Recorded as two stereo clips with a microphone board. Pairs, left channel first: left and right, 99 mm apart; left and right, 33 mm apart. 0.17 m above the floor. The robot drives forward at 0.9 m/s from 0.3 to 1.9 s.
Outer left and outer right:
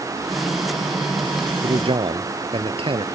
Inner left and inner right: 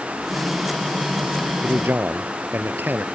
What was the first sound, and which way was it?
A man speaking, 70° right (ahead or behind).